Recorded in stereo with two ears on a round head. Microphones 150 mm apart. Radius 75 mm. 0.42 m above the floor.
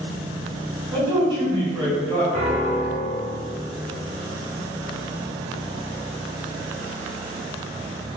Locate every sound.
0.9 s a man speaking: 25° right (ahead or behind), 1.7 m
2.3 s a piano: 35° right (ahead or behind), 1.5 m